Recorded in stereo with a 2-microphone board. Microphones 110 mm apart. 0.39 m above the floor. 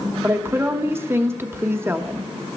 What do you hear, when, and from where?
0.2 s a woman speaking: 20° right (ahead or behind), 0.9 m